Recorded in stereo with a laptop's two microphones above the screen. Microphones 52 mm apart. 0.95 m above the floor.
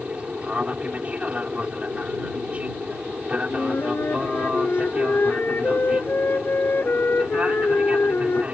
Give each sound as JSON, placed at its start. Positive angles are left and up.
{"t": 0.0, "sound": "an aircraft", "side_deg": -25}
{"t": 3.5, "sound": "a flute", "side_deg": 45}